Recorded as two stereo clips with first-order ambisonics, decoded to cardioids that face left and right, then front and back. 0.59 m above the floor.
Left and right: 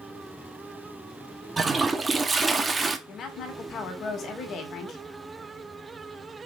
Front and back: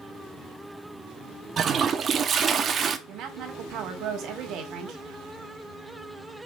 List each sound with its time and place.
1.6 s a toilet flushing: 150° right, 0.9 m
3.1 s a woman speaking: 140° left, 2 m